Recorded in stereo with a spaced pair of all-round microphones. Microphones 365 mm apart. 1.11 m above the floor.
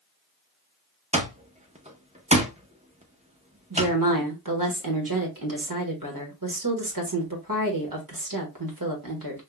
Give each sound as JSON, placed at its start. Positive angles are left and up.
{"t": 1.1, "sound": "an alarm clock", "side_deg": -20, "distance_m": 0.8}
{"t": 3.7, "sound": "a woman speaking", "side_deg": -60, "distance_m": 1.4}